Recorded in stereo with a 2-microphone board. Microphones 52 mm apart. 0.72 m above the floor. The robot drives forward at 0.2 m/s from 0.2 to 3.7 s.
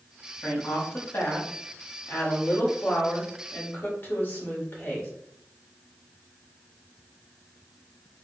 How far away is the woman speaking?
About 1.4 m.